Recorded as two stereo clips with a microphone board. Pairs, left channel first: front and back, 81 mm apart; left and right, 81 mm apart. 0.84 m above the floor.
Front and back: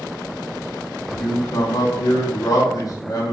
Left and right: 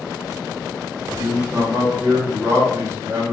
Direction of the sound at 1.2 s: 40° right.